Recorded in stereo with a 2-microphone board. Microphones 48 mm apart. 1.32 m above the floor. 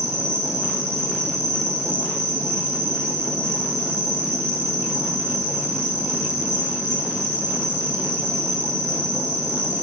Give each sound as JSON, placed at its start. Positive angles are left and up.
{"t": 0.0, "sound": "an insect", "side_deg": -70, "distance_m": 7.5}